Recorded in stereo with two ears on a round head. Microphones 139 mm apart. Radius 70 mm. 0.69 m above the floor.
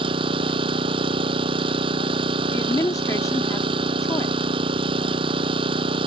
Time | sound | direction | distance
0.0 | an engine running | 35° right (ahead or behind) | ?
2.5 | a woman speaking | 20° left (ahead or behind) | ?